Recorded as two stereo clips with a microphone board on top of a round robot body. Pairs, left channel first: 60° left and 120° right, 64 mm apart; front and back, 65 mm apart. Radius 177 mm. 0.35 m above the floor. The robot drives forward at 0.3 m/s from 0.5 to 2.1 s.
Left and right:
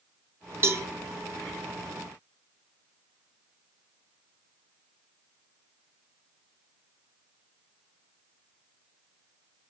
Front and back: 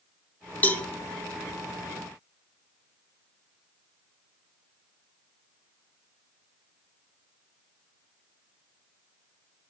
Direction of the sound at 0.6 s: 70° right.